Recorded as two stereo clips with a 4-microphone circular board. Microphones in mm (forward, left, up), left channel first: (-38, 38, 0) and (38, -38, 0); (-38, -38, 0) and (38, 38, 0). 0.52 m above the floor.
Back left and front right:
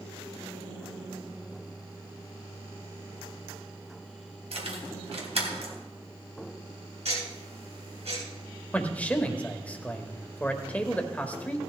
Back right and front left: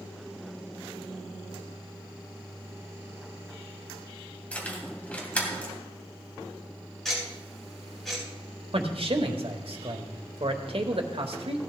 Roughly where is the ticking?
Ahead right.